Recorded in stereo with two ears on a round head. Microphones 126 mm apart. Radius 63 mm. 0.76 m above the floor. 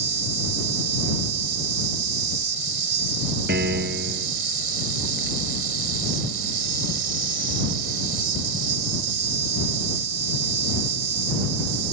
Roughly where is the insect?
Right.